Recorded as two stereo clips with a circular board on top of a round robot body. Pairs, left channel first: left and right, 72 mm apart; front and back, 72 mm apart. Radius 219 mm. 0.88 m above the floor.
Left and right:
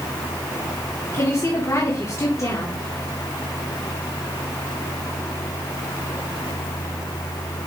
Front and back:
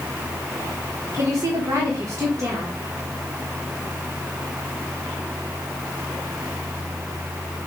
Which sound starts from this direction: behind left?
A woman speaking, at 1.1 s.